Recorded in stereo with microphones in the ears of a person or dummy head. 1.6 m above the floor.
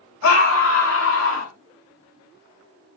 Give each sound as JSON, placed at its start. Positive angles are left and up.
{"t": 0.2, "sound": "a scream", "side_deg": 80, "distance_m": 3.5}